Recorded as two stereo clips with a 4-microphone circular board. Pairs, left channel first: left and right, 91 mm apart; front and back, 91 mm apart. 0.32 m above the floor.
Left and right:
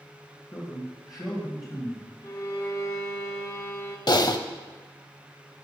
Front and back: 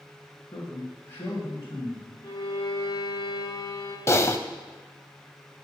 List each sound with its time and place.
0.5 s a man speaking: 55° left, 1.9 m
2.2 s a violin: 45° left, 1.4 m
4.1 s typing on a keyboard: 55° left, 0.5 m